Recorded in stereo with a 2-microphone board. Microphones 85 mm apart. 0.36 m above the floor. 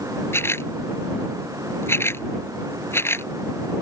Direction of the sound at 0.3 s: 30° left (ahead or behind).